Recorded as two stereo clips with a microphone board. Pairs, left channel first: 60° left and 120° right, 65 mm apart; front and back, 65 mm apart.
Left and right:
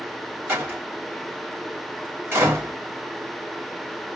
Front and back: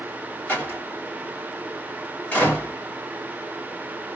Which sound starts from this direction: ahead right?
A door slam, at 0.5 s.